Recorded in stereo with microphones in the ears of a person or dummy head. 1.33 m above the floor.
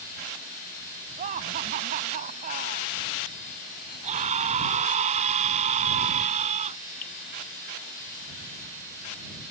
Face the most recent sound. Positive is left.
turn(degrees=40)  # may be behind; listen again after turning